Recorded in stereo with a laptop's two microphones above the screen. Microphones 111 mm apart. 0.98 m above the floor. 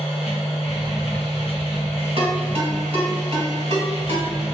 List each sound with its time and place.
0.0 s a machine running: 65° left (ahead or behind), 0.9 m
2.2 s a ringtone: 70° right (ahead or behind), 1.5 m